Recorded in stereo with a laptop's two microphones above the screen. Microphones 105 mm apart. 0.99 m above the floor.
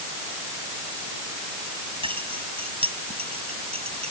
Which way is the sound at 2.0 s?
60° right (ahead or behind).